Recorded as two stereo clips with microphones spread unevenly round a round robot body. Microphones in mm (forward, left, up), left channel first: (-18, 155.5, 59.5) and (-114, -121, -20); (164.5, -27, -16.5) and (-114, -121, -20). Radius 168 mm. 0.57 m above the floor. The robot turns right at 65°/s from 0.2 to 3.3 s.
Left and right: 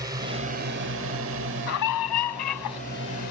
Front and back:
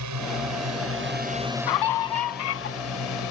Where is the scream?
15° left; by 2.8 s 90° left.